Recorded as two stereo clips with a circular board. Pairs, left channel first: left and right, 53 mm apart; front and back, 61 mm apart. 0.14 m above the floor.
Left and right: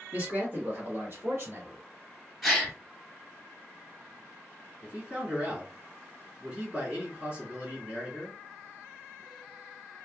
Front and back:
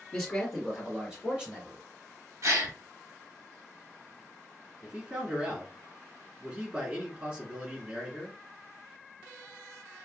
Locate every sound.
0.1 s a man speaking: 80° right, 1.8 m; by 1.8 s 115° right, 3 m
2.4 s a gasp: straight behind, 1.4 m
4.8 s a man speaking: 130° right, 1.3 m